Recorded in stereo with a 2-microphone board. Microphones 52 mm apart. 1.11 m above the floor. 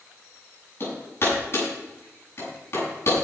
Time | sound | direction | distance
0.8 | hammering | 45° left (ahead or behind) | 7.5 m